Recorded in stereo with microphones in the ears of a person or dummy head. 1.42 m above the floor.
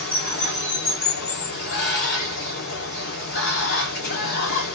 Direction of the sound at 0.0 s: 55° left (ahead or behind).